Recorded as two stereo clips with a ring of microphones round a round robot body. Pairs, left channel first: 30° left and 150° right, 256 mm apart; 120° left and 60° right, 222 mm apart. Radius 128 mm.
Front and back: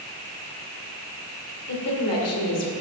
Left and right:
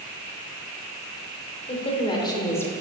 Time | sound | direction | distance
1.7 | a woman speaking | 65° left | 2.5 m